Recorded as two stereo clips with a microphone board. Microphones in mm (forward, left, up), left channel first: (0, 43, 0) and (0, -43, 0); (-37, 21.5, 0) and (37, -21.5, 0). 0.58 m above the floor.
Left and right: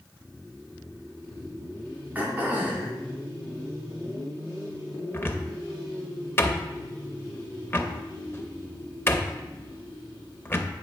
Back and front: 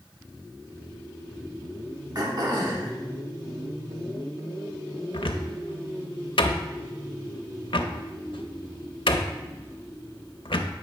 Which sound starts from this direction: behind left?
A cupboard door, at 5.1 s.